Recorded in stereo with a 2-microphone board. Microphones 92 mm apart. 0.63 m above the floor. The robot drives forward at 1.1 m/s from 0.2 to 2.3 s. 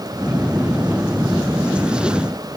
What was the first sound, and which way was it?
Only background noise.